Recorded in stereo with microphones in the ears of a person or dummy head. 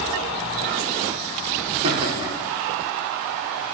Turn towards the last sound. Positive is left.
turn(degrees=-10)  # may be behind; listen again after turning